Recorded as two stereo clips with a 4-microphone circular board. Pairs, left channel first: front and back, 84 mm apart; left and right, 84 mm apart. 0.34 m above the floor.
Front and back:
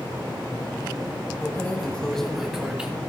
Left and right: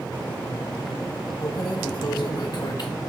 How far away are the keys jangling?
About 1.3 m.